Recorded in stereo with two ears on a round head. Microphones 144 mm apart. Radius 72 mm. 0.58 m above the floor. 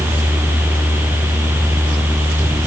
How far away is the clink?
I don't hear a clink.